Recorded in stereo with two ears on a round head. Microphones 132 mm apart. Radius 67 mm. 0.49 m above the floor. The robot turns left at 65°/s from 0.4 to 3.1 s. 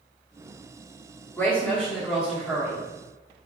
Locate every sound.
1.4 s a woman speaking: 15° left (ahead or behind), 1.2 m; by 2.9 s 15° right (ahead or behind), 1.2 m